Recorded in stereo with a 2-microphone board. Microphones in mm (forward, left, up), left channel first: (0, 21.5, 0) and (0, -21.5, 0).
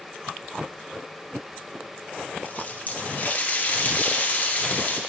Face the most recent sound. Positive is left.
turn(degrees=40)  # may be behind; listen again after turning